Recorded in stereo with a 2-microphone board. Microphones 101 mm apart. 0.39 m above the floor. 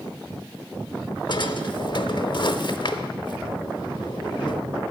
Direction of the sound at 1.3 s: 55° left (ahead or behind).